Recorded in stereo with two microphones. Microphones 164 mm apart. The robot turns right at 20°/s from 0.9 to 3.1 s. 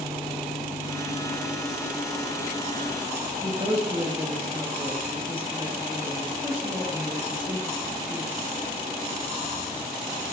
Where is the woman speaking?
30° right (ahead or behind), 2.5 m.